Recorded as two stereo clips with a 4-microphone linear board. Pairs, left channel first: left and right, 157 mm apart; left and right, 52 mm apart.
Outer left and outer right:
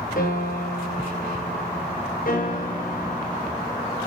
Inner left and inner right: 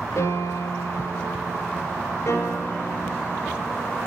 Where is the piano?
60° left (ahead or behind), 3.5 m.